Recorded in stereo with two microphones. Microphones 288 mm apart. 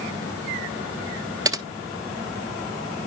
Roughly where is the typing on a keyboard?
Centre.